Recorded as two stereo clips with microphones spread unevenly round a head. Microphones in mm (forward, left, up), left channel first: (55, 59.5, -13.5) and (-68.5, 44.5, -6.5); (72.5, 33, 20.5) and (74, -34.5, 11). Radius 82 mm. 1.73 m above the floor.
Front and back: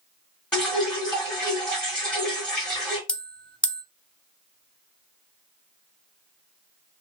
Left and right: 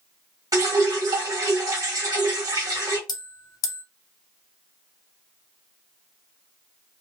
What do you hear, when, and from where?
0.5 s dripping: 75° right, 2 m
3.1 s a bell: 90° left, 0.6 m